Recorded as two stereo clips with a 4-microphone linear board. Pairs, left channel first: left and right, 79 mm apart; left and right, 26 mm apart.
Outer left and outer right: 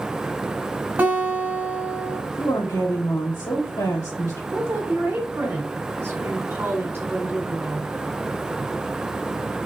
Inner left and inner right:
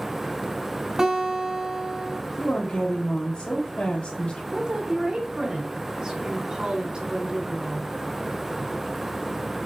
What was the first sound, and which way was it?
A guitar, 25° right (ahead or behind).